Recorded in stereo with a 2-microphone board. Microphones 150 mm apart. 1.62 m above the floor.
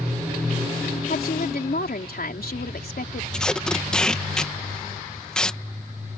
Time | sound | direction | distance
1.1 | a woman speaking | 75° left (ahead or behind) | ?
3.3 | tape being pulled | 5° left (ahead or behind) | ?